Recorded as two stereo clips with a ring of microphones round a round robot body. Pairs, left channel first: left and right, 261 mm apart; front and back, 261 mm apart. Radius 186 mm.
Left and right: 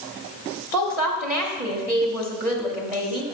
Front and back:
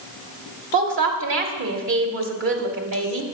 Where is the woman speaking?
175° right, 1.2 m.